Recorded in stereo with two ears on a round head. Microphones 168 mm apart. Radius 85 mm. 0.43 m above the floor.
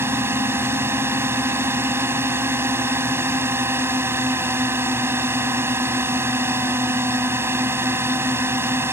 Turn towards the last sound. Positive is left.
turn(degrees=-10)  # may be behind; listen again after turning